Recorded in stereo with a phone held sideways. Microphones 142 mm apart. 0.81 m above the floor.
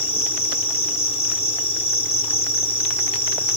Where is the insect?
45° left (ahead or behind).